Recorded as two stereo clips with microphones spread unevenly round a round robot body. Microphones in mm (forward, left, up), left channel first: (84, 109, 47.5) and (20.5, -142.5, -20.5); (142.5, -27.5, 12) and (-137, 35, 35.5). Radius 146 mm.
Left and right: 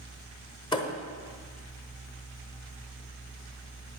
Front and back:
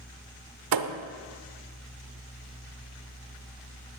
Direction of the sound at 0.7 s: 150° left.